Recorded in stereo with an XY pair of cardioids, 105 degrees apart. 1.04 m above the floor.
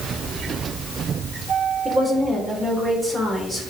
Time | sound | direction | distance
1.9 | a woman speaking | 20° right | 4.5 m